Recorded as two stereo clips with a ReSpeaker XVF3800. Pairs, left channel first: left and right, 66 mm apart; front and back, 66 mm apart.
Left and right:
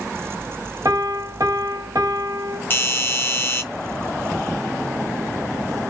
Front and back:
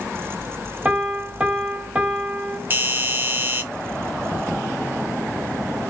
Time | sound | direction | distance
0.8 | a piano | 110° right | 1.0 m
2.7 | a doorbell | 135° left | 0.7 m